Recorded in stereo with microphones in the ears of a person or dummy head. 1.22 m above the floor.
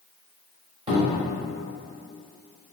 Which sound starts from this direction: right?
A cupboard door, at 0.9 s.